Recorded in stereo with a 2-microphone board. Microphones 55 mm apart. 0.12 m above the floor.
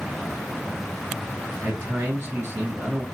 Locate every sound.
1.6 s a man speaking: 50° right (ahead or behind), 1.8 m